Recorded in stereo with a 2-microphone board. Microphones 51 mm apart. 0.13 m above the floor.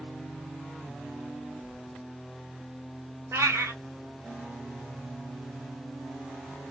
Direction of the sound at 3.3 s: 70° right (ahead or behind).